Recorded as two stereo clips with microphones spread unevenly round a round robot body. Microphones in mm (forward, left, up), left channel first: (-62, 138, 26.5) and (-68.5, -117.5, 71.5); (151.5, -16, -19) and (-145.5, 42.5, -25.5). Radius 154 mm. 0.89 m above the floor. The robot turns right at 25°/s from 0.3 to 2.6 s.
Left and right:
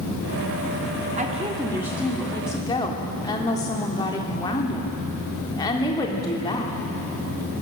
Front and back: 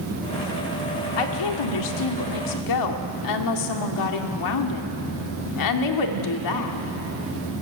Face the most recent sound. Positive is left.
turn(degrees=15)